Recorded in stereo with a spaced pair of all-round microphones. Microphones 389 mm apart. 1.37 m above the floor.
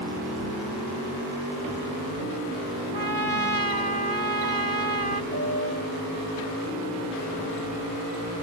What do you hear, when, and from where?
2.9 s a trumpet: 70° right (ahead or behind)
5.3 s a piano: 75° right (ahead or behind)